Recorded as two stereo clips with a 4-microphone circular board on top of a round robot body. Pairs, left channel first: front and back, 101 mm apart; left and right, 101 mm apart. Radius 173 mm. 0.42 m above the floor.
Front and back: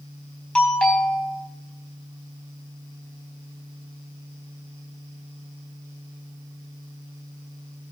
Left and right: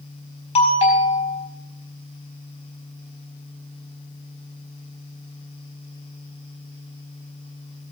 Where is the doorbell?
85° left, 4.5 m.